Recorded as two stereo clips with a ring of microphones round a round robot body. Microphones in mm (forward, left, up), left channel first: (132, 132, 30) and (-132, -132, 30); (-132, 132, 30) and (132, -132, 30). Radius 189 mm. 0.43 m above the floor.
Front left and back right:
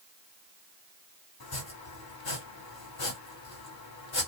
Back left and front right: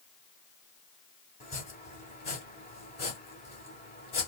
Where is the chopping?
70° left, 1.8 m.